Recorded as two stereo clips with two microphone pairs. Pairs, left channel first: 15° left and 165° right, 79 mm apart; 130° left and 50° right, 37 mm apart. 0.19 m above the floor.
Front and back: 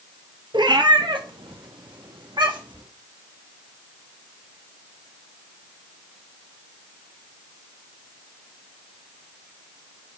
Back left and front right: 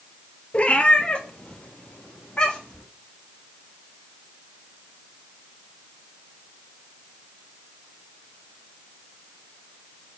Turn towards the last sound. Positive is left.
turn(degrees=-165)